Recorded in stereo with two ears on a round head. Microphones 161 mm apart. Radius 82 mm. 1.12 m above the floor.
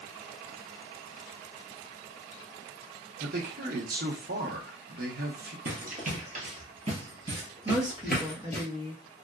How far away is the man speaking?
About 1.0 m.